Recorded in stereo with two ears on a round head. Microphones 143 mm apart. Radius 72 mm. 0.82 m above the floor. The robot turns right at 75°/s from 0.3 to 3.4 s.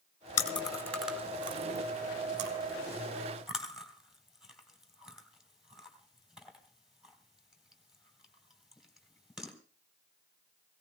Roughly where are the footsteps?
I don't hear footsteps.